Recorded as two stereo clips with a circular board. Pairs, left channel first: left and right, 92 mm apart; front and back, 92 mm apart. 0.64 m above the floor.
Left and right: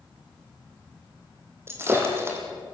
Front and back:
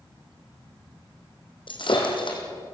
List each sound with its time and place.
1.7 s breaking glass: 30° right, 4 m